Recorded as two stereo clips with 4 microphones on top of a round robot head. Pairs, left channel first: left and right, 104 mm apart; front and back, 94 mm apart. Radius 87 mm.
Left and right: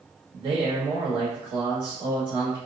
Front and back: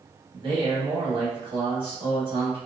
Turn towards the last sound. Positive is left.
turn(degrees=-140)